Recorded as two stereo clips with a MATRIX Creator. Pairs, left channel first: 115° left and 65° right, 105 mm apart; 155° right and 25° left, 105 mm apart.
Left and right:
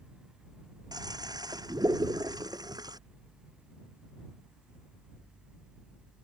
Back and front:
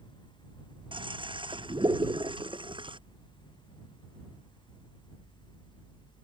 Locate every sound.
0.9 s a toilet flushing: 15° right